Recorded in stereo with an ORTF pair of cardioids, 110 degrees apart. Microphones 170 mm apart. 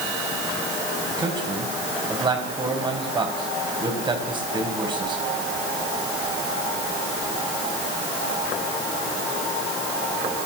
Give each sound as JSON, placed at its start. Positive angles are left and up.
{"t": 1.1, "sound": "a man speaking", "azimuth_deg": -25, "distance_m": 7.0}